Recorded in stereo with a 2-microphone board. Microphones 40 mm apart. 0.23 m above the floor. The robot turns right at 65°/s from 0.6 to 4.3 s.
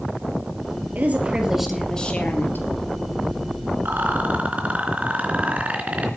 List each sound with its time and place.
0.9 s a woman speaking: 45° right, 4 m; by 2.7 s 65° left, 4 m
3.9 s a rattle: 55° right (ahead or behind), 3.5 m; by 6.1 s 35° right (ahead or behind), 3.5 m